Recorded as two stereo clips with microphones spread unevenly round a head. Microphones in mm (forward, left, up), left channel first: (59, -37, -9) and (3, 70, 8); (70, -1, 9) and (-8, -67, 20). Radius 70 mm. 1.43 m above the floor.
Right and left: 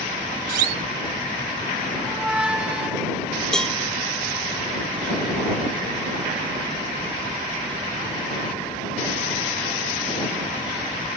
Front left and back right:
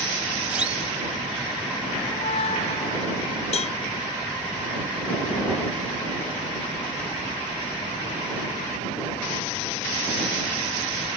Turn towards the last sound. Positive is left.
turn(degrees=25)